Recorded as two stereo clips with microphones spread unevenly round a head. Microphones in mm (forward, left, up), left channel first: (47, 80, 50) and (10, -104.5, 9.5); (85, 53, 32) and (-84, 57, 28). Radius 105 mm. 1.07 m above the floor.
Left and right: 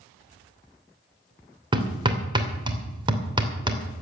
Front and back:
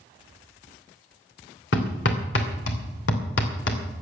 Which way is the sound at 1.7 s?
35° right.